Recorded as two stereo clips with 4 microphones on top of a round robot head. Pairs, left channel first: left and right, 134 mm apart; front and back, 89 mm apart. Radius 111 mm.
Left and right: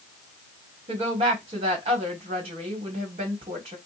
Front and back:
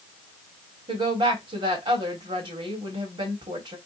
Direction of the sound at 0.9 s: 140° right.